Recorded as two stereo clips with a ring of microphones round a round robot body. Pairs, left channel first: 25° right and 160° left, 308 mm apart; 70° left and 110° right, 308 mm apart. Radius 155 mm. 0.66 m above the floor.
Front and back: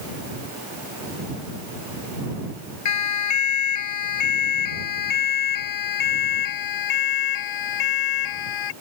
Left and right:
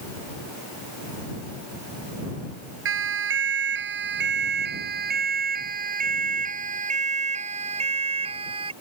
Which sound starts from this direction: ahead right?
A siren, at 2.9 s.